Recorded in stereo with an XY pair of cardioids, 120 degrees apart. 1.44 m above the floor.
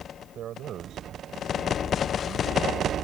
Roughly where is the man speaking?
Ahead right.